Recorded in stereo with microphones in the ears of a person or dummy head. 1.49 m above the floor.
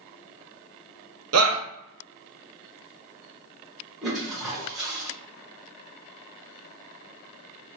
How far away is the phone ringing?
I don't hear a phone ringing.